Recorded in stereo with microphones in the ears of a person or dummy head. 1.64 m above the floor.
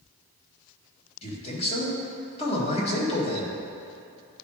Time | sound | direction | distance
1.2 | a man speaking | 35° left (ahead or behind) | 1.7 m